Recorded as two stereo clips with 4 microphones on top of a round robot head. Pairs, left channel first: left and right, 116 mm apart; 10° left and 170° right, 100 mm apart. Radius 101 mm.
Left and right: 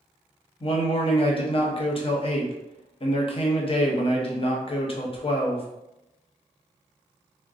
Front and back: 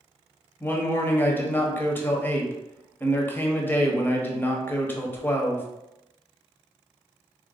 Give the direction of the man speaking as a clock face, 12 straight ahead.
9 o'clock.